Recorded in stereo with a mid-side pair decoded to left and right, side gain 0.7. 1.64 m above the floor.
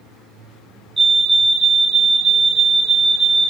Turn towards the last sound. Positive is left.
turn(degrees=-25)